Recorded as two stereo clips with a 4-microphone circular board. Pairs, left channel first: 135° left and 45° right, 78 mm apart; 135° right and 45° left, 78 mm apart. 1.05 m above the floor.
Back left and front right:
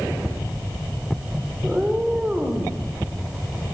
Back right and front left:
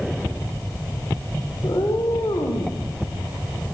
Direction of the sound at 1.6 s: 125° right.